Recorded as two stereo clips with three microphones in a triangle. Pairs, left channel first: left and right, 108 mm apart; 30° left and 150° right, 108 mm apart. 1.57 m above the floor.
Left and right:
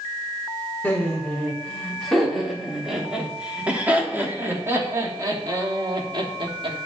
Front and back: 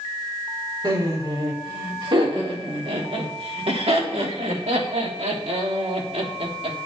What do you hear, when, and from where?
0.8 s laughter: 165° left, 4 m; by 6.8 s 130° right, 3 m